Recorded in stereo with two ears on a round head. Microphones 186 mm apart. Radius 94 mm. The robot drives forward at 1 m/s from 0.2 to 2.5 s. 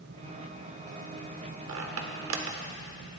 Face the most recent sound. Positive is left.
turn(degrees=-70)  # may be behind; listen again after turning